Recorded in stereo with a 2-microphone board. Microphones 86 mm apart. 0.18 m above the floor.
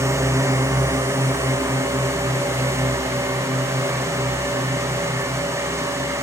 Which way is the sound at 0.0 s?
35° right (ahead or behind).